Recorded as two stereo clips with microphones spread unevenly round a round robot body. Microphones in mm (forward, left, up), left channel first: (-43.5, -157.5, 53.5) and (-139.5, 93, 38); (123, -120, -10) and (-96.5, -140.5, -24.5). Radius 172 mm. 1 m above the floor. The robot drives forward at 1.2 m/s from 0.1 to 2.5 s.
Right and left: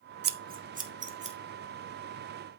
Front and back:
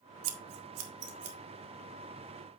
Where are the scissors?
165° left, 0.6 m; by 1.4 s 175° left, 2.0 m.